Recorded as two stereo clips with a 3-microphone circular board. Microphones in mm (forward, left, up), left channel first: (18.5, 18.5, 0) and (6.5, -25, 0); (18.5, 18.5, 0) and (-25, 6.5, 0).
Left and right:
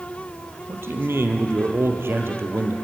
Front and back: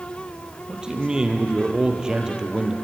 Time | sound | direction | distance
0.7 | a man speaking | 95° right | 3 m